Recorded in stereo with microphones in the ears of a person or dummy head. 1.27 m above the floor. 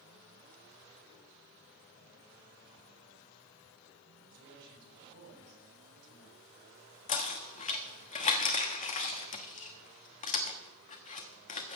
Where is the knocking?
40° left (ahead or behind), 1.3 m.